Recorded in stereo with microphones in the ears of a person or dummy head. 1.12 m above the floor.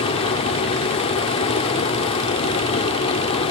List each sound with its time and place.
0.0 s running water: 25° left (ahead or behind), 0.8 m